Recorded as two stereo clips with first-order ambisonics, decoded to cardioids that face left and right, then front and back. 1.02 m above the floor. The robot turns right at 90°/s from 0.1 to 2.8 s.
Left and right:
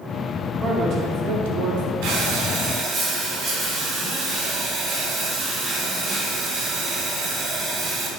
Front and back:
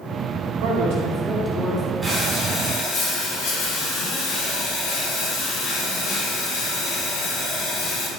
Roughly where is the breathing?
Right.